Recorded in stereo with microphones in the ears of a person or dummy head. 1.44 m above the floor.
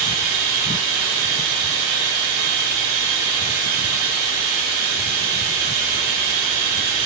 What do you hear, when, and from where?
0.0 s running water: 60° right (ahead or behind), 1.3 m